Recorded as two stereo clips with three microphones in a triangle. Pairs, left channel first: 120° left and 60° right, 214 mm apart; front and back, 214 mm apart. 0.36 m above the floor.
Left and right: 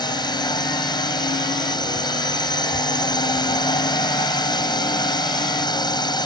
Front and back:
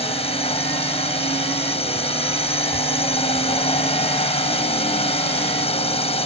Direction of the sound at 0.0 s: 55° left.